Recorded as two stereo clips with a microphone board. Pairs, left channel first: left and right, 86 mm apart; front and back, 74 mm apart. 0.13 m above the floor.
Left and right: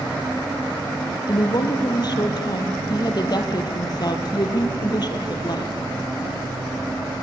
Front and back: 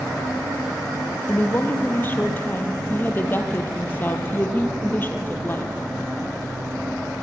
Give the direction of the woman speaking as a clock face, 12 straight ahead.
10 o'clock.